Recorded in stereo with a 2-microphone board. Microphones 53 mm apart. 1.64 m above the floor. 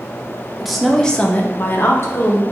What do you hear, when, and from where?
0.6 s a woman speaking: 5° right (ahead or behind), 0.7 m; by 2.4 s 55° left (ahead or behind), 0.8 m